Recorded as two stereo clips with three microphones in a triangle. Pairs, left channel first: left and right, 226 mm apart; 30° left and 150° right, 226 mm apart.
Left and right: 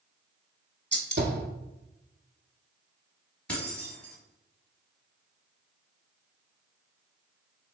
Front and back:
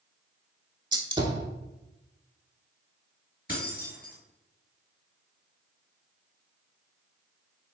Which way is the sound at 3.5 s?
5° left.